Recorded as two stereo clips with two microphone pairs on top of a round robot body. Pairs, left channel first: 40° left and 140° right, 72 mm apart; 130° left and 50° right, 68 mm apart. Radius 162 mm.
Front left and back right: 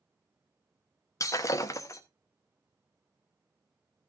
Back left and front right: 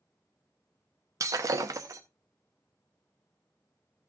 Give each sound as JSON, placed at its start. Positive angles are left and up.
{"t": 1.2, "sound": "breaking glass", "azimuth_deg": -10, "distance_m": 0.8}